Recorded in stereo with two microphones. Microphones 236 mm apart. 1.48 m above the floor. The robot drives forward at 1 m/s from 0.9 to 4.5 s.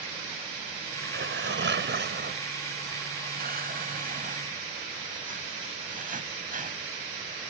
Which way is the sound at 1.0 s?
60° right (ahead or behind).